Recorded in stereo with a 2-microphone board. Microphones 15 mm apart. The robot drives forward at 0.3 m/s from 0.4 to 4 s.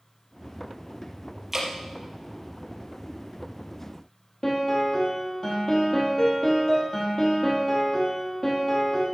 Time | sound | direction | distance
1.5 | dripping | 15° right (ahead or behind) | 3.5 m
4.4 | a piano | 40° left (ahead or behind) | 4.5 m